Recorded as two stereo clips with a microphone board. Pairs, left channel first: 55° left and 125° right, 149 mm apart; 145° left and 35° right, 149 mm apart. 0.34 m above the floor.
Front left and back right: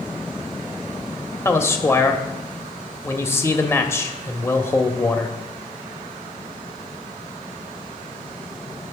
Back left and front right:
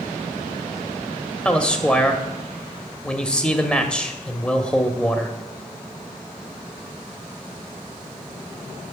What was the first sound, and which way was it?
A man speaking, 75° left.